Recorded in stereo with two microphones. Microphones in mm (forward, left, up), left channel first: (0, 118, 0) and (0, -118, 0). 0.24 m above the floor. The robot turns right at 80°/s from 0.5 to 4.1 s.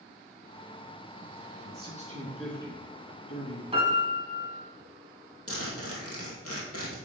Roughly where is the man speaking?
Ahead right.